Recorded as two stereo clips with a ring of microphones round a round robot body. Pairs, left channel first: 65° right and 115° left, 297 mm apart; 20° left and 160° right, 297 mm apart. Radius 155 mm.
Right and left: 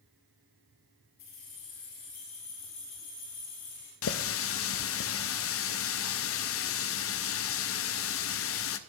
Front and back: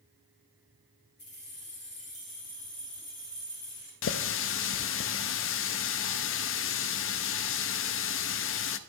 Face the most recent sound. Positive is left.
turn(degrees=-25)